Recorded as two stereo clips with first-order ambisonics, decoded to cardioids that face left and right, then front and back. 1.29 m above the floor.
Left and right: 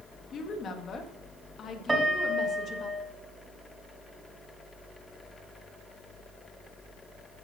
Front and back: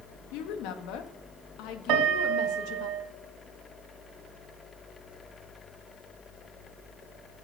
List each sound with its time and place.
0.3 s a woman speaking: 30° left, 1.7 m
1.9 s a piano: 170° right, 1.8 m